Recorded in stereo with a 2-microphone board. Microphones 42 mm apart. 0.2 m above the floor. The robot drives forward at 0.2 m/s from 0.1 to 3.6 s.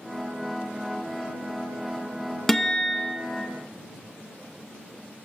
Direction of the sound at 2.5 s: 10° left (ahead or behind).